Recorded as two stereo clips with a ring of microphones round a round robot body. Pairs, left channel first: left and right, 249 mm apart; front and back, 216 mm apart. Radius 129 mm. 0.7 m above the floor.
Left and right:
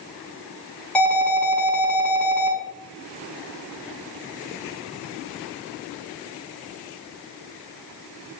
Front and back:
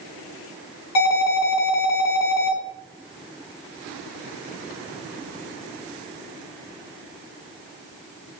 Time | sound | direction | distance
0.9 | an alarm | 5° left | 5.5 m